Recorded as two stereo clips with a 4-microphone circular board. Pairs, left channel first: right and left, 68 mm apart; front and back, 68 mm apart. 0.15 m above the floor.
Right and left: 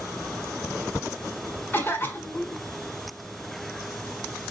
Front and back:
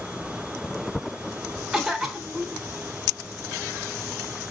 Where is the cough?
95° right, 1.2 m.